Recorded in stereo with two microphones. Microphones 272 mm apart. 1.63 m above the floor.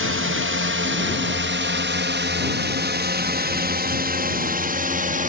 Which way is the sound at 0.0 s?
50° right (ahead or behind).